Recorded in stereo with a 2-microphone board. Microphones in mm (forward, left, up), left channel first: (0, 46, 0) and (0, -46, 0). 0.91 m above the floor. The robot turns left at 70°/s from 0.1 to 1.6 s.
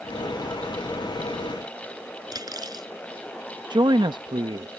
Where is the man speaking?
55° right (ahead or behind).